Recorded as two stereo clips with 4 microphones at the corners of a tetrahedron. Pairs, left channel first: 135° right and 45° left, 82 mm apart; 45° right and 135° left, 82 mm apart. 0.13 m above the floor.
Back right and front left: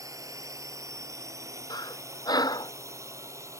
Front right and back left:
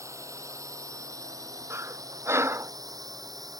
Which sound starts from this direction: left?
A drone, at 0.0 s.